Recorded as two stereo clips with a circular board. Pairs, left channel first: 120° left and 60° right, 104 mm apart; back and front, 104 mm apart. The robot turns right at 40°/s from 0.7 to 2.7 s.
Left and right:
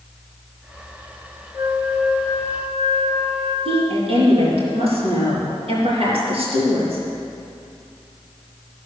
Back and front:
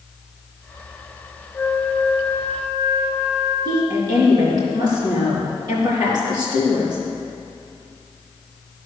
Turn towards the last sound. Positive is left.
turn(degrees=-45)